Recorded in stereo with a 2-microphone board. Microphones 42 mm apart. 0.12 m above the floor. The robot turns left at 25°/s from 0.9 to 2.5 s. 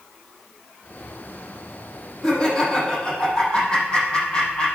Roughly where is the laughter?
Centre.